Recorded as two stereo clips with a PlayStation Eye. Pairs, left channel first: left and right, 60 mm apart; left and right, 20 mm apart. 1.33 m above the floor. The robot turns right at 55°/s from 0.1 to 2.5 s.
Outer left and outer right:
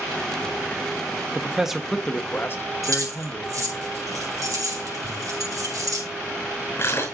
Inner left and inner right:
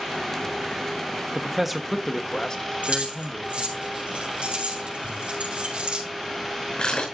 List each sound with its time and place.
1.4 s a man speaking: 25° right, 1.1 m; by 3.8 s 40° left, 1.1 m
2.8 s keys jangling: 85° right, 3.5 m
5.0 s crumpling: 50° left (ahead or behind), 4.5 m